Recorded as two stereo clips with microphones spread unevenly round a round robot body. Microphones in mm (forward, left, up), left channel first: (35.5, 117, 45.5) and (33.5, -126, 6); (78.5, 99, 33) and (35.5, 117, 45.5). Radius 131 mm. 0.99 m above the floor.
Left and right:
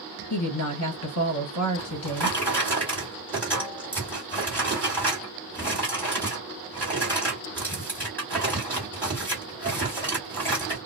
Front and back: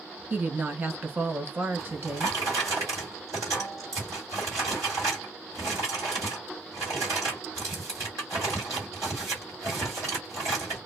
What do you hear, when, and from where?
0.3 s a woman speaking: 105° left, 1.5 m
1.8 s a drawer: 170° left, 1.4 m